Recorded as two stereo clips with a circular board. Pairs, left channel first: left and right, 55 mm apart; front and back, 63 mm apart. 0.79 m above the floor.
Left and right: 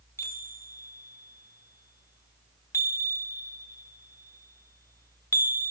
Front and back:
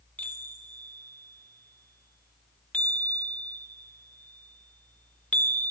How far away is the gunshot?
No gunshot in this recording.